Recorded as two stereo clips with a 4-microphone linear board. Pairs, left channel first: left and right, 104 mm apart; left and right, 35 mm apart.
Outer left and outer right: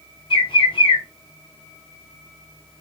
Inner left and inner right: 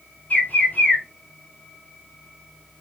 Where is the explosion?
No explosion in this recording.